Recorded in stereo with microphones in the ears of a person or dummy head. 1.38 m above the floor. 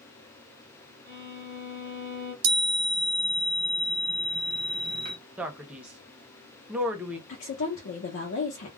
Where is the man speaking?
10° right (ahead or behind), 0.6 m.